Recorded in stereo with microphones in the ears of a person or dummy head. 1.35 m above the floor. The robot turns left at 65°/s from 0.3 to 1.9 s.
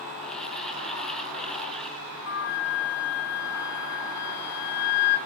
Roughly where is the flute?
Left.